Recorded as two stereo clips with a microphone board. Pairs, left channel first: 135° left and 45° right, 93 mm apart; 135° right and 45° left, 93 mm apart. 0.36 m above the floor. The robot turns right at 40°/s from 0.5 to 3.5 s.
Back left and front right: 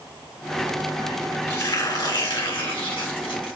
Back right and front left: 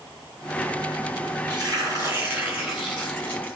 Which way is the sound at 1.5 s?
80° left.